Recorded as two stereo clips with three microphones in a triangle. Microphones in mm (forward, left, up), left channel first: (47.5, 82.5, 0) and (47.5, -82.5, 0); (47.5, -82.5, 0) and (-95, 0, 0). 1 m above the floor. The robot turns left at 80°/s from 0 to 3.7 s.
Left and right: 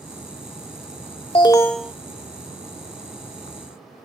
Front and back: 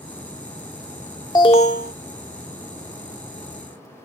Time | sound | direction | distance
1.4 | an alarm | 35° left | ?